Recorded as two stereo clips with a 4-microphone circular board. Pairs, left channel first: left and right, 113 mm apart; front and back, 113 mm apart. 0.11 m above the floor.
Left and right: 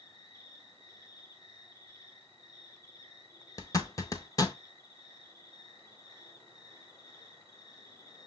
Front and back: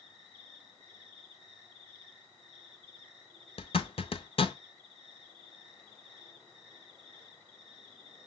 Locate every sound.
0.0 s an insect: 60° left, 2.5 m
3.6 s a zipper: 35° left, 0.5 m